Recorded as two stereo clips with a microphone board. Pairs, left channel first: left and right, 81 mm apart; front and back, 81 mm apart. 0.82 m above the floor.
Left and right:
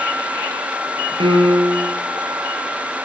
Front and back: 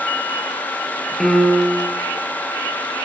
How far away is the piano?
About 5.5 m.